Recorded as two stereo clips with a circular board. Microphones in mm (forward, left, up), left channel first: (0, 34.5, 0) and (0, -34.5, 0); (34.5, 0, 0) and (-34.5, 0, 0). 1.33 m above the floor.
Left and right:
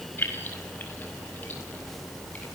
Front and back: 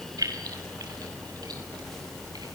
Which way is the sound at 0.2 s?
150° left.